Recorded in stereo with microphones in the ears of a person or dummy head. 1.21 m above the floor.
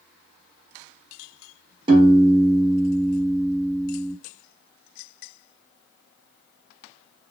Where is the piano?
25° right (ahead or behind), 0.6 m.